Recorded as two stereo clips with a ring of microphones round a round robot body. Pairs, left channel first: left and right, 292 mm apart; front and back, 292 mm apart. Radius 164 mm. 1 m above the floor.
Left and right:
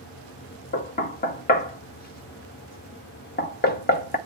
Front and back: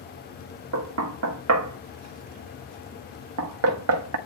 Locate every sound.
0.7 s knocking: 150° left, 1.3 m